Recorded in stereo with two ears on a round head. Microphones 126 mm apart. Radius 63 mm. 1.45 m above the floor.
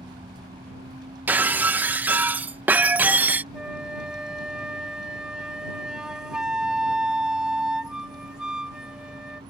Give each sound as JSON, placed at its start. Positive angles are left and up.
{"t": 0.0, "sound": "a vehicle", "side_deg": -30}
{"t": 1.3, "sound": "breaking glass", "side_deg": -10}
{"t": 3.5, "sound": "a flute", "side_deg": -5}